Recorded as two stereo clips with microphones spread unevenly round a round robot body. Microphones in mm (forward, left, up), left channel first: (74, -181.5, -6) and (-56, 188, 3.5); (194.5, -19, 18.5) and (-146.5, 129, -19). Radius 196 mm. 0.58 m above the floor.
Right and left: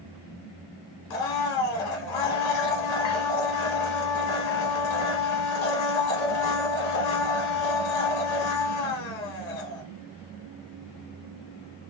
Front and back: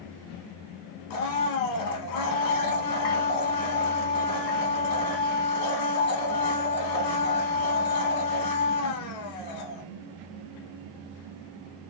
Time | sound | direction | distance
1.1 | a blender | 55° right | 0.8 m